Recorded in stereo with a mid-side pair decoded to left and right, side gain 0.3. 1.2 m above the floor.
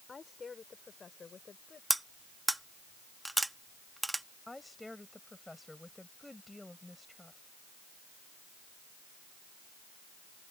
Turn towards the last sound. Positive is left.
turn(degrees=15)